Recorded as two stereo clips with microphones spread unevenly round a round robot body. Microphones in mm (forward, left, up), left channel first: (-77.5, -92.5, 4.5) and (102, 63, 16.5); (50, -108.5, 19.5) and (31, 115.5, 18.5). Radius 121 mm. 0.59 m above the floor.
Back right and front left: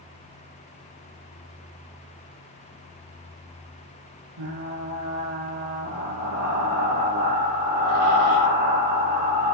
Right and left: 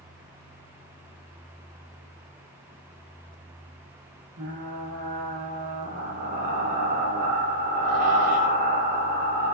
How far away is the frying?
About 6 m.